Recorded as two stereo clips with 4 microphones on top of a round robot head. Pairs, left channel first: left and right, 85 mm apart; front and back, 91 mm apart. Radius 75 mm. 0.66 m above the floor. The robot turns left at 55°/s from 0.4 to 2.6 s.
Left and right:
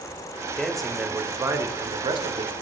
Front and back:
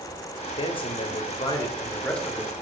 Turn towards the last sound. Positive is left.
turn(degrees=-100)